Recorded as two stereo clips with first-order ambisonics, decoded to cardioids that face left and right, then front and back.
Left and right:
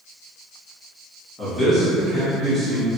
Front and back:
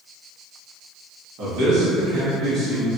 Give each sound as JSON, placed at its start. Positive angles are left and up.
{"t": 1.4, "sound": "a man speaking", "azimuth_deg": -175, "distance_m": 1.3}